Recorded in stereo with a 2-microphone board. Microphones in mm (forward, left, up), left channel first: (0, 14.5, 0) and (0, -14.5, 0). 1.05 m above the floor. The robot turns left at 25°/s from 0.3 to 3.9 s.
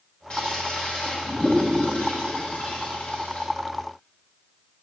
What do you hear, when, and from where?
0.3 s a toilet flushing: 30° left (ahead or behind), 1.7 m; by 3.5 s 55° left (ahead or behind), 1.7 m